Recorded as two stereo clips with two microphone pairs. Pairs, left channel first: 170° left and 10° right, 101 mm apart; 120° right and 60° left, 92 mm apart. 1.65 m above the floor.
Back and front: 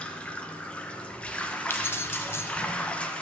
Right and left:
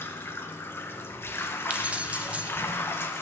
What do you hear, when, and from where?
0.0 s running water: 125° right, 0.7 m
1.7 s keys jangling: 130° left, 0.5 m